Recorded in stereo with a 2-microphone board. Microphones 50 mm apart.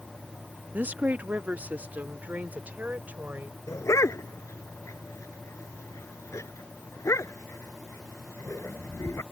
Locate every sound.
0.7 s a woman speaking: 35° right (ahead or behind)
3.7 s a dog barking: 85° left